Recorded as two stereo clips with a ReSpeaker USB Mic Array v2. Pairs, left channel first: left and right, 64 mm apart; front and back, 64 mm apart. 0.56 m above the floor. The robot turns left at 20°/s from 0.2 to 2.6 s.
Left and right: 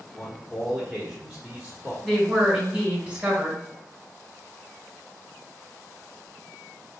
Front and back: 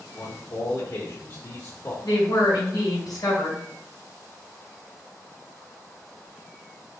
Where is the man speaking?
Straight ahead, 1.2 m; by 1.9 s 35° right, 1.2 m.